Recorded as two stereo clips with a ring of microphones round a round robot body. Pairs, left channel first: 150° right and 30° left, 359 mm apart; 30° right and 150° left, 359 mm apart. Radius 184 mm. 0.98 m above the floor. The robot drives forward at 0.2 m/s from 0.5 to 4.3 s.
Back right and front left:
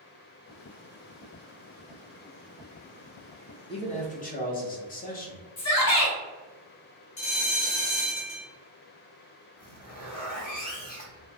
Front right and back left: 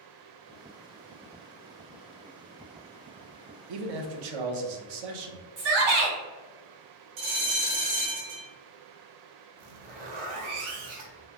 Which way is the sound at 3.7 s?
135° left.